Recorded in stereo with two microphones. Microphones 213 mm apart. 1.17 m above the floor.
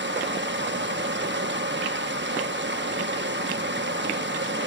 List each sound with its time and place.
0.0 s running water: 55° right (ahead or behind), 1.1 m